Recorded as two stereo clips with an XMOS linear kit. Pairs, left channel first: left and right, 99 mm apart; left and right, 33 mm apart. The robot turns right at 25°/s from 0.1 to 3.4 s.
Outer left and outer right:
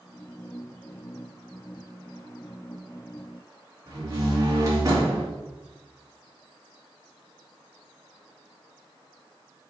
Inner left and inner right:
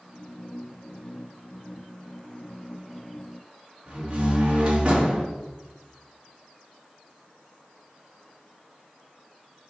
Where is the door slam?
30° right (ahead or behind), 2 m.